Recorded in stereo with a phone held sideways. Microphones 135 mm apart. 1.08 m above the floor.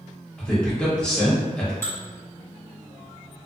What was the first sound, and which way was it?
A man speaking, 5° left (ahead or behind).